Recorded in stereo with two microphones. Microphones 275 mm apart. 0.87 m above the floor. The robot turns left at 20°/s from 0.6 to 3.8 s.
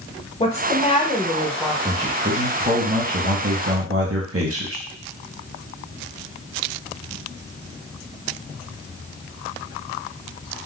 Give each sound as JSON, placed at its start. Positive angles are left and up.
{"t": 0.4, "sound": "a woman speaking", "side_deg": 25, "distance_m": 0.8}
{"t": 1.9, "sound": "a man speaking", "azimuth_deg": -25, "distance_m": 0.9}